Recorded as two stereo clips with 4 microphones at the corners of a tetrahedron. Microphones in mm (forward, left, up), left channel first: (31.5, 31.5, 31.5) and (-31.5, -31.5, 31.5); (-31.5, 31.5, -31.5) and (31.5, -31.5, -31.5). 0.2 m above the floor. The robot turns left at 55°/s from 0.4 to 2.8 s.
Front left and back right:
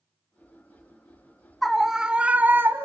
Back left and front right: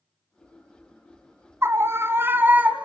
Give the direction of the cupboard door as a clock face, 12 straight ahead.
No cupboard door in this recording.